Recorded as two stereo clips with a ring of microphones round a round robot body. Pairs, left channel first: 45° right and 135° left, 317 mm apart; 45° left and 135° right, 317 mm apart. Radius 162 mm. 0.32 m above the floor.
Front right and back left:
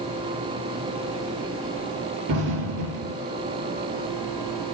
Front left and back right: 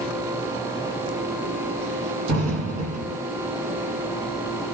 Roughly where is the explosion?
Behind left.